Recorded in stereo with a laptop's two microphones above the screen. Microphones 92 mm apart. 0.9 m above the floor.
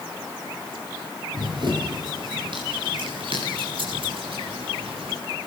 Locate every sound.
1.3 s running footsteps: 55° right (ahead or behind), 4.5 m; by 5.2 s 75° right (ahead or behind), 4.5 m